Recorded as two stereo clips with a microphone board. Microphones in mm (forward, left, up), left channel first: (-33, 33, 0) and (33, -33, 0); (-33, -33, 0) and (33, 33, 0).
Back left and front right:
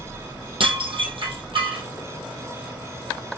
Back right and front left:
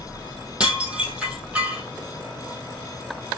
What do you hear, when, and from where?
0.6 s dishes clattering: 35° right, 2.5 m